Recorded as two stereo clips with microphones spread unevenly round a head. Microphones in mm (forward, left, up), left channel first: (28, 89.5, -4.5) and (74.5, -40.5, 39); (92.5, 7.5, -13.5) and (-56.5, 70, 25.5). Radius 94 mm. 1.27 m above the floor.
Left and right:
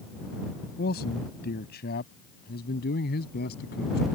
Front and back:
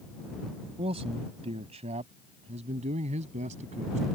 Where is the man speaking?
105° left; by 4.1 s 115° left.